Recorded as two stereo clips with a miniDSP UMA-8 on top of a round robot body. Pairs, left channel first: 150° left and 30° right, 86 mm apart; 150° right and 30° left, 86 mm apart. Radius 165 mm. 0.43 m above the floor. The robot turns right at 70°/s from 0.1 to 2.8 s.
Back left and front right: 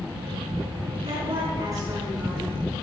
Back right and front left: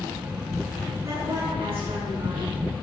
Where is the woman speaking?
30° right, 7.5 m; by 2.5 s 70° left, 7.5 m.